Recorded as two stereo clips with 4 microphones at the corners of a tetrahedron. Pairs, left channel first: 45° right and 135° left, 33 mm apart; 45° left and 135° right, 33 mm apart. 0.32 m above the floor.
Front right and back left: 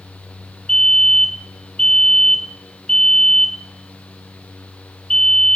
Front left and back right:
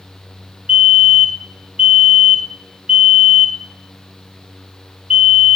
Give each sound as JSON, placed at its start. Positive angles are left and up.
{"t": 0.7, "sound": "a fire alarm", "azimuth_deg": -120, "distance_m": 2.5}